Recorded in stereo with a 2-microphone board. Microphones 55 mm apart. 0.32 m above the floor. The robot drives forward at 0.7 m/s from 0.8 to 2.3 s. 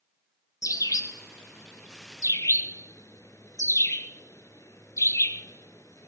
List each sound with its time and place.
0.6 s a bird: 75° left (ahead or behind), 1.6 m; by 6.1 s 65° left (ahead or behind), 1.7 m